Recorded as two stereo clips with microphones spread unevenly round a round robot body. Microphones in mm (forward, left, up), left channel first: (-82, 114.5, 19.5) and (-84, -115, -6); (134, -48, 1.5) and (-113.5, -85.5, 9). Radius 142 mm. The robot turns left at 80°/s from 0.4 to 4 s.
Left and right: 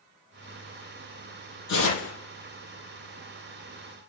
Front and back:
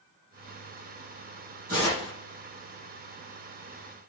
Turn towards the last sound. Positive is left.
turn(degrees=-60)